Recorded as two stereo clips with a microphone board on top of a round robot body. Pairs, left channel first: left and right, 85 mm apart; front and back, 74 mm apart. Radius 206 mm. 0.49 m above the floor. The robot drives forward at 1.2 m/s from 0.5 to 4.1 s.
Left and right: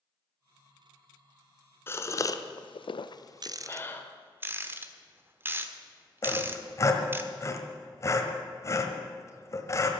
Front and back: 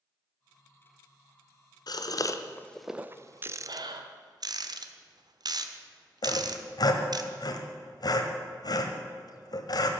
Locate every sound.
1.9 s a gasp: 25° left, 1.3 m; by 4.0 s 155° left, 1.6 m
3.4 s a rattle: 120° right, 0.7 m; by 7.2 s 155° right, 1.3 m
6.2 s sawing: 35° left, 1.5 m